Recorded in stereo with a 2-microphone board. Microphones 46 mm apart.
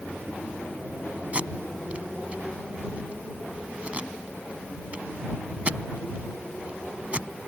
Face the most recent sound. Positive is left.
turn(degrees=-30)  # may be behind; listen again after turning